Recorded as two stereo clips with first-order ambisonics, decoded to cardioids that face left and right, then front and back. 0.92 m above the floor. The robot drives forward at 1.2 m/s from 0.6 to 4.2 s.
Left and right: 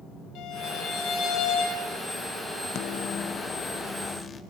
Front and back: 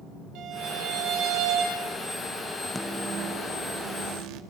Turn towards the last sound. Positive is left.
turn(degrees=165)